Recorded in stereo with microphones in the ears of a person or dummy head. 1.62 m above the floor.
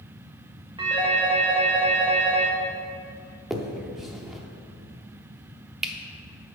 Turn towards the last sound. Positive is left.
turn(degrees=-5)  # may be behind; listen again after turning